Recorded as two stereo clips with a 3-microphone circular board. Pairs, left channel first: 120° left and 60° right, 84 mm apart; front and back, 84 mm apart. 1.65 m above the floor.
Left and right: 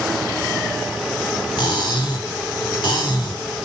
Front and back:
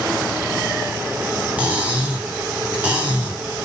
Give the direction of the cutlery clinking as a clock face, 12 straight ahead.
8 o'clock.